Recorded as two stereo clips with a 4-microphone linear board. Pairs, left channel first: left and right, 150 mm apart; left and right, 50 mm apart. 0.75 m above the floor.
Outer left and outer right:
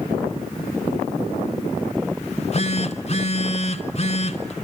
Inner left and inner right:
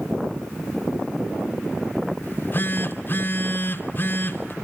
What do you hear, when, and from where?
2.2 s a phone buzzing: 45° left (ahead or behind), 2.5 m